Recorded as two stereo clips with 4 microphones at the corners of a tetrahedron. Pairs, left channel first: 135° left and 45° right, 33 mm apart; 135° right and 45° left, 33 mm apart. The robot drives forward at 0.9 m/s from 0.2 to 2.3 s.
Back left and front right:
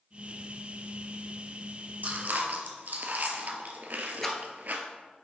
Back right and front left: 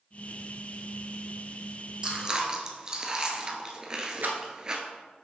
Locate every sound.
2.0 s chewing: 20° right, 1.1 m; by 4.8 s 25° right, 0.9 m
4.2 s a rattle: 55° left, 1.1 m